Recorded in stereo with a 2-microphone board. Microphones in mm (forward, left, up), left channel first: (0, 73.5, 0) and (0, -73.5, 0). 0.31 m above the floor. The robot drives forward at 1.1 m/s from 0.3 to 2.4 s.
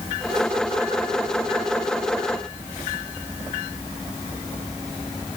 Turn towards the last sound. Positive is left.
No sound to turn to.